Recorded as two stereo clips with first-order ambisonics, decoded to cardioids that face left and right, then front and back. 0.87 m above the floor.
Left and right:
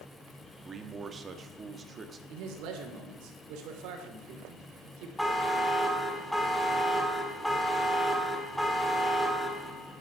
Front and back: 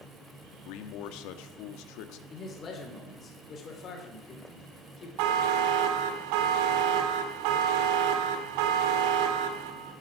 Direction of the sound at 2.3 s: 65° right.